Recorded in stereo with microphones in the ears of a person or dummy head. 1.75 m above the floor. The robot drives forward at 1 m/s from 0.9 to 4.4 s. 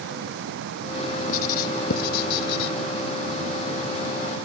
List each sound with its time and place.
1.3 s writing: 50° left (ahead or behind); by 2.7 s 65° left (ahead or behind)